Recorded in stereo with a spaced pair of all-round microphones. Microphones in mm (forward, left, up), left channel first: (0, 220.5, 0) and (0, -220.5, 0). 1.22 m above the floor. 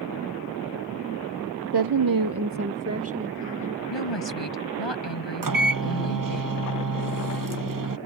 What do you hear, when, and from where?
1.7 s a woman speaking: 60° right (ahead or behind); by 3.8 s 25° right (ahead or behind)
3.9 s a woman speaking: 80° left
5.4 s a microwave: 50° right (ahead or behind)